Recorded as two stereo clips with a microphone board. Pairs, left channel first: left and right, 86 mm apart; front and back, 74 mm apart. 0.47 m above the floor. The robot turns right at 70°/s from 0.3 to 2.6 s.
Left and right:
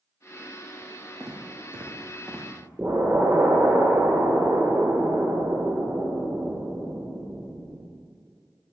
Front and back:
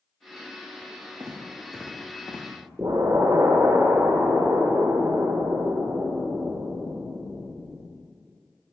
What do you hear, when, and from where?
1.2 s footsteps: 145° right, 2 m; by 2.5 s 10° right, 2.5 m
2.8 s an explosion: 140° right, 0.9 m